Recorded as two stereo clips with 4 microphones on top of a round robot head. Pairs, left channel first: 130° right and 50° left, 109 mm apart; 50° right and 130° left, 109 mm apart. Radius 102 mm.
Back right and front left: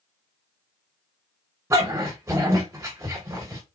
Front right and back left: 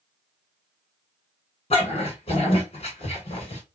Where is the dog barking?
20° right, 2 m.